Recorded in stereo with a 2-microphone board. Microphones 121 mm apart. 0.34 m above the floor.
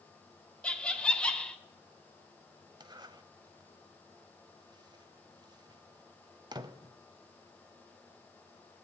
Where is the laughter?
5° left (ahead or behind), 0.9 m.